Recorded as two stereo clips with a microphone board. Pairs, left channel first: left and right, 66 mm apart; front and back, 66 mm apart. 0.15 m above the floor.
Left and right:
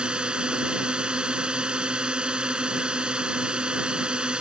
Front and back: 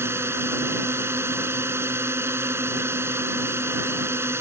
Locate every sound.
0.0 s a drone: 160° right